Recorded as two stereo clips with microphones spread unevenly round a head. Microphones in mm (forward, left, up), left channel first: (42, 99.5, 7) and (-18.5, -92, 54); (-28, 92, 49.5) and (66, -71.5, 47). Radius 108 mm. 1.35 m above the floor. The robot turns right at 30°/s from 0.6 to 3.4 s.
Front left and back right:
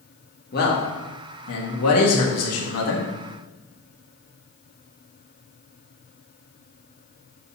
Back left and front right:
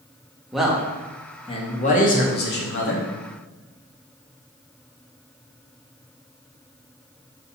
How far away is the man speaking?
About 1.6 m.